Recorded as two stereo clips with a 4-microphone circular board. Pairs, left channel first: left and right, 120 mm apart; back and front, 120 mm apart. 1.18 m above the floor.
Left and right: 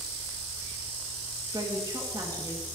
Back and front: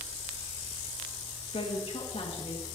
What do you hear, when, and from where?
1.5 s a woman speaking: 150° right, 1.6 m